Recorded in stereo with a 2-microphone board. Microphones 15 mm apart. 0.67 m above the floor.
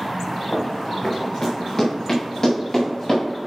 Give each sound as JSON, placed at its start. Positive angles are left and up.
{"t": 0.5, "sound": "running footsteps", "side_deg": 40, "distance_m": 3.5}